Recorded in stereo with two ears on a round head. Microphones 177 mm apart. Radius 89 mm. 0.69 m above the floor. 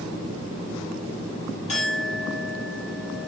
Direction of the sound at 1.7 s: 35° left (ahead or behind).